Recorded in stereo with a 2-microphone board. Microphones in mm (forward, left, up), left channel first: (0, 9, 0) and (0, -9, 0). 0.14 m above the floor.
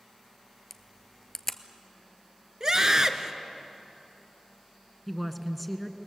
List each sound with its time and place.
0.7 s a camera shutter: 15° left (ahead or behind), 0.9 m
2.6 s a scream: 35° right (ahead or behind), 1.7 m
5.1 s a woman speaking: 5° left (ahead or behind), 1.3 m